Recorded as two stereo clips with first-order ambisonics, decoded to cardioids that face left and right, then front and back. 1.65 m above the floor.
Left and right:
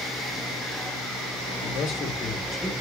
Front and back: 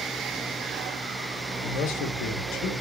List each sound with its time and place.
1.6 s a man speaking: 45° left, 1.1 m; by 2.7 s straight ahead, 1.9 m